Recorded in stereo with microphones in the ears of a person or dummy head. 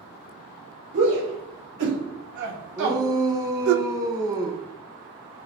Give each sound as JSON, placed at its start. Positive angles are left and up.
{"t": 0.9, "sound": "a shout", "side_deg": -65, "distance_m": 3.0}
{"t": 2.8, "sound": "a shout", "side_deg": -20, "distance_m": 0.8}